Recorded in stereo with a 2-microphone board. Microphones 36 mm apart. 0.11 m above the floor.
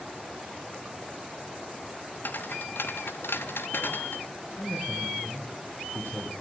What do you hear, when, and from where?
2.2 s footsteps: 60° left (ahead or behind), 1.8 m
4.6 s a man speaking: 60° left (ahead or behind), 7.5 m